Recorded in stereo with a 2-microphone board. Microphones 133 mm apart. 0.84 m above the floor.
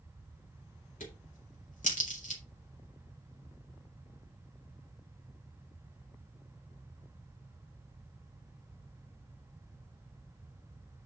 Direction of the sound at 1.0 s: 75° left (ahead or behind).